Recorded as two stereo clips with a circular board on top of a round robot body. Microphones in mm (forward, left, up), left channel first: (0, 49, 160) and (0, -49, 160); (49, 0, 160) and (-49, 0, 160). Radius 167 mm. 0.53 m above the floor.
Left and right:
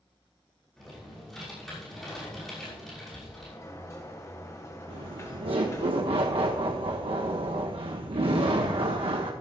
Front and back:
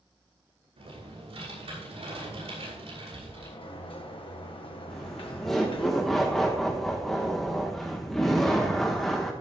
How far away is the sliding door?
About 1.6 m.